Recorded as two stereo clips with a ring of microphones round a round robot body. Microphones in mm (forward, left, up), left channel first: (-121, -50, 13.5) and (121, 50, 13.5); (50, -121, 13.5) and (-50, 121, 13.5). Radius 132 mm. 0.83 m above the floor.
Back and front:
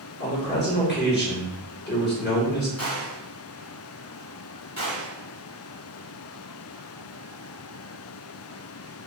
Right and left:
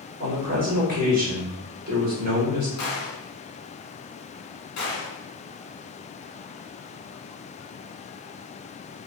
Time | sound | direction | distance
0.2 | a man speaking | 160° left | 1.4 m
2.8 | a gunshot | 90° right | 1.5 m